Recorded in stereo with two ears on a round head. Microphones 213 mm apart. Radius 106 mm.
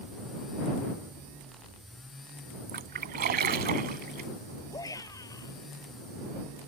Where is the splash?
40° right (ahead or behind).